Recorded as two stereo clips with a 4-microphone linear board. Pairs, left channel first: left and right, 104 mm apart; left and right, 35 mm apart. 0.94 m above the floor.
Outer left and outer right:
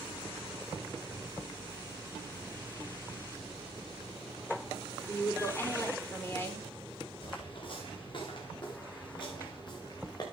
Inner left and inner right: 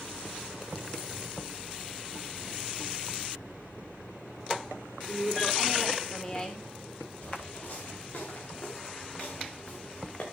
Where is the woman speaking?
25° left (ahead or behind), 3.5 m.